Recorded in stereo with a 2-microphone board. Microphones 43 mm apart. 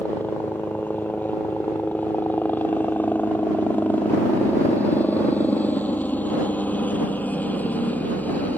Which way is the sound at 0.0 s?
40° left (ahead or behind).